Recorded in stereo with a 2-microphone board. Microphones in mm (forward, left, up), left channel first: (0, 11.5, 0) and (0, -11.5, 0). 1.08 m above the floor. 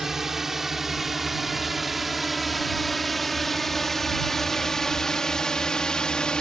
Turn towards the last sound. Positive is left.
turn(degrees=40)  # may be behind; listen again after turning